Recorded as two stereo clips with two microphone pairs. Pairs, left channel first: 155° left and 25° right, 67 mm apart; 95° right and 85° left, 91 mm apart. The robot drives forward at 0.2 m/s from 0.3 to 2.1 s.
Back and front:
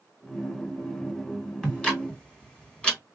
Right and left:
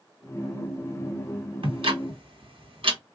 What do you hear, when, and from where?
1.6 s ticking: 80° left, 1.4 m; by 3.0 s 85° left, 1.4 m